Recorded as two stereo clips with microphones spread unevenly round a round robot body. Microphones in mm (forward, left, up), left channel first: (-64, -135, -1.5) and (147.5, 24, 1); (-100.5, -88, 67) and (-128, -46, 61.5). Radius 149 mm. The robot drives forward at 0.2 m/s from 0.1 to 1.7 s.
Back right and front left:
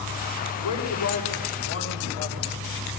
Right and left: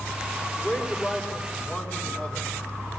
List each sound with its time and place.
0.6 s a man speaking: 120° right, 4 m; by 2.5 s 125° right, 4 m